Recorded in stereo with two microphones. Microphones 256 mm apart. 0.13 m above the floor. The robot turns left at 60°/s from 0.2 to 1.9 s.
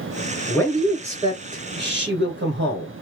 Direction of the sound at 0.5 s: 20° left.